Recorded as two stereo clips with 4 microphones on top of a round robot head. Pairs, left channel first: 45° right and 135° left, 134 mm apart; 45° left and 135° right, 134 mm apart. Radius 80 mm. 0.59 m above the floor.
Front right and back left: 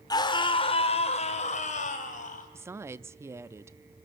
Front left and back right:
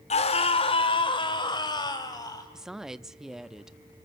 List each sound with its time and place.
0.1 s a scream: 15° left, 2 m; by 2.5 s 20° right, 4.5 m
2.5 s a woman speaking: 145° left, 0.6 m